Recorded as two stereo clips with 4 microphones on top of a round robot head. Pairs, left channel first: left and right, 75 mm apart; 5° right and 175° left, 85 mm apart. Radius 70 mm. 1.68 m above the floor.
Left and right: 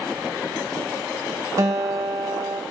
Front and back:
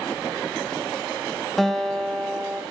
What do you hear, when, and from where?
1.6 s a guitar: 90° right, 0.8 m